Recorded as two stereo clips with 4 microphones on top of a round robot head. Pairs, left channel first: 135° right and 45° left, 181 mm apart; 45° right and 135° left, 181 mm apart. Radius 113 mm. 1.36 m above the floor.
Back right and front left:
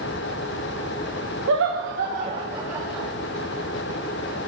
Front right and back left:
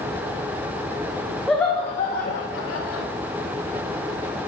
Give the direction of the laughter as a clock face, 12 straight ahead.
11 o'clock.